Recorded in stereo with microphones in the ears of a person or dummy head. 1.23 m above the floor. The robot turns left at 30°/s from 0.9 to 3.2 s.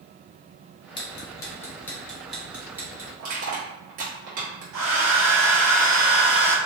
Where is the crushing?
50° right (ahead or behind), 1.2 m.